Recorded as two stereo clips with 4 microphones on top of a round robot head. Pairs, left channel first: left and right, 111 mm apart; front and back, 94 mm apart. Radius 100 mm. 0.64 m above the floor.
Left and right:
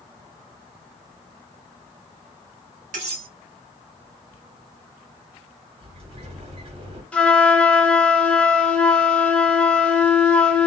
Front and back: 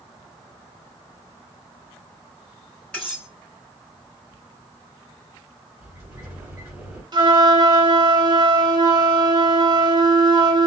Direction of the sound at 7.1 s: 165° left.